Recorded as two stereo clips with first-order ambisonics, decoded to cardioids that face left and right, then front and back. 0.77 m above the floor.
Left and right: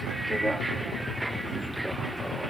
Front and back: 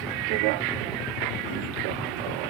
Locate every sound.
0.0 s a vehicle: 175° right